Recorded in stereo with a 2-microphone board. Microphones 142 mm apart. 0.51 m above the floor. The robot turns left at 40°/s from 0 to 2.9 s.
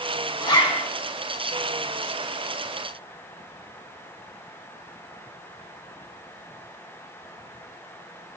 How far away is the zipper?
About 0.5 m.